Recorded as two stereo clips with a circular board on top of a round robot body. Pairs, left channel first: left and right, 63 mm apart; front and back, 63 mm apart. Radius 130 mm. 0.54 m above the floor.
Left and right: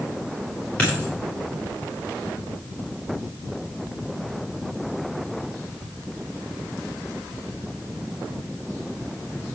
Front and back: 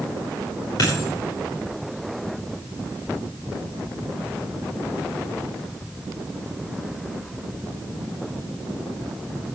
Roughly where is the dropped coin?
Ahead.